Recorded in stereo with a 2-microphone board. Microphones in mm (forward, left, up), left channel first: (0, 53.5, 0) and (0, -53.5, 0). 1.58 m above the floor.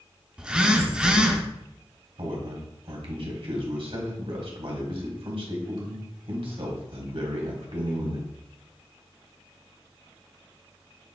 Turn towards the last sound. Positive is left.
turn(degrees=-65)  # may be behind; listen again after turning